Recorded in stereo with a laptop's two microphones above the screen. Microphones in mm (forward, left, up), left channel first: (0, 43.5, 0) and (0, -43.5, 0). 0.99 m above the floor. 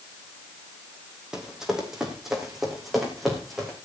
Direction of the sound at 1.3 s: 5° right (ahead or behind).